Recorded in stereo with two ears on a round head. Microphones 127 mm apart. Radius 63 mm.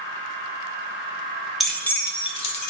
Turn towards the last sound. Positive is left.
turn(degrees=55)  # may be behind; listen again after turning